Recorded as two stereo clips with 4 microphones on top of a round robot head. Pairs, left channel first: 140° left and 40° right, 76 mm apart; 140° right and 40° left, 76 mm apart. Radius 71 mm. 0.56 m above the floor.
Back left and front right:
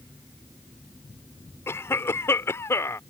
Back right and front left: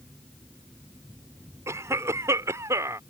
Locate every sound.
1.7 s a cough: 85° left